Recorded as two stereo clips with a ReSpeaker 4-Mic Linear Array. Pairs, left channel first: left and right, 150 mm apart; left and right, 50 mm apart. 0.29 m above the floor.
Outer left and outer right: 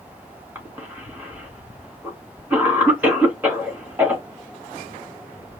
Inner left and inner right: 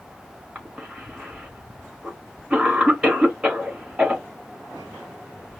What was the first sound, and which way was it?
A cough, 10° right (ahead or behind).